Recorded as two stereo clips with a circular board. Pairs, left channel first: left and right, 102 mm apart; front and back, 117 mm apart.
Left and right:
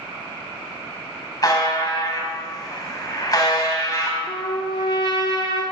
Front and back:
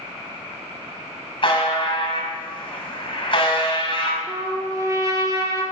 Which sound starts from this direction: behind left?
A trumpet, at 4.3 s.